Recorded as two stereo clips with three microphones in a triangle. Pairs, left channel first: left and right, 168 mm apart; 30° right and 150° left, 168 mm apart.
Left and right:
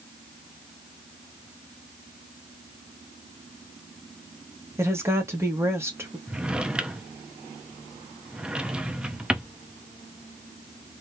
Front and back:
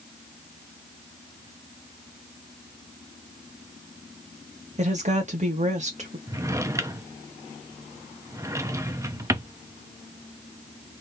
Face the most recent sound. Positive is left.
turn(degrees=-165)